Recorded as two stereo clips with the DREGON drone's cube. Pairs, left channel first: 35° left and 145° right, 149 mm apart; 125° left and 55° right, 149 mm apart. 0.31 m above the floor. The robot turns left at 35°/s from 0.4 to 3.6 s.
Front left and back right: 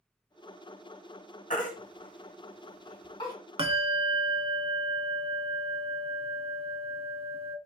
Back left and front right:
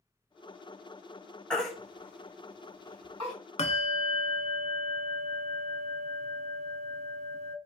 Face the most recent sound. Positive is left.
turn(degrees=165)